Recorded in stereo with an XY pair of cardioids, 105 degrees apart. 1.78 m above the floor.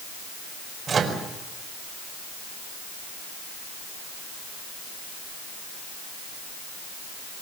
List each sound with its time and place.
0.9 s a microwave: 40° right, 5 m